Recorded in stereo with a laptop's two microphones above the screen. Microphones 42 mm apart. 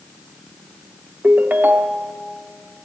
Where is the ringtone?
45° right (ahead or behind), 0.7 m.